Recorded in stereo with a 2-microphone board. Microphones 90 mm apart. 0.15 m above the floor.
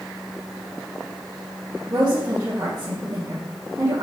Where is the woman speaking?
45° right (ahead or behind), 2.5 m.